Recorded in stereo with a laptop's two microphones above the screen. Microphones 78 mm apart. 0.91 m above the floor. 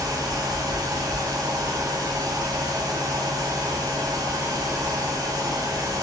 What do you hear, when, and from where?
0.0 s a fan: 50° right (ahead or behind), 0.7 m